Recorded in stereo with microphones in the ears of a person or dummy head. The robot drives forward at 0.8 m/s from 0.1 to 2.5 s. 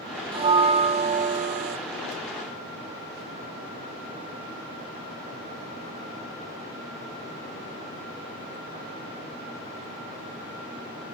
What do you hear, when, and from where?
0.3 s a bell: 25° right (ahead or behind), 1.7 m; by 1.8 s 40° right (ahead or behind), 1.2 m